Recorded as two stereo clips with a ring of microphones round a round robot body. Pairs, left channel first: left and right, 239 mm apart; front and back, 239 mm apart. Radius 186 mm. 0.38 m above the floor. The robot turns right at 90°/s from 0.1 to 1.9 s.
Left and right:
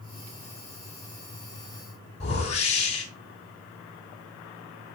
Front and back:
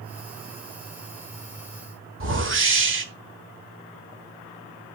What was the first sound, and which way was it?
A whoosh, 155° left.